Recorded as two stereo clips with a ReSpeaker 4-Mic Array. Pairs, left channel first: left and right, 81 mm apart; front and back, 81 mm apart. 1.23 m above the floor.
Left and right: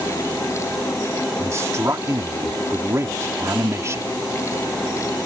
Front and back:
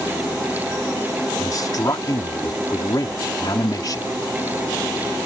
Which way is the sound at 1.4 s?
35° right.